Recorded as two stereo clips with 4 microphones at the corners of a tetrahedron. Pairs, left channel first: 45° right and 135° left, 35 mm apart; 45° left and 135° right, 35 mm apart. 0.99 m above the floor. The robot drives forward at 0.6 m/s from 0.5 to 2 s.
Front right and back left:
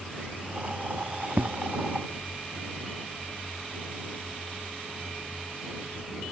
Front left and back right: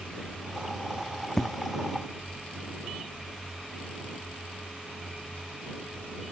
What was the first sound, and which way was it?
An explosion, 120° left.